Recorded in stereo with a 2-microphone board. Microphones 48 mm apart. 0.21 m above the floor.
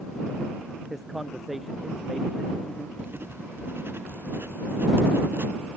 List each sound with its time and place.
0.9 s a man speaking: centre (ahead or behind)
3.0 s writing: 50° right (ahead or behind)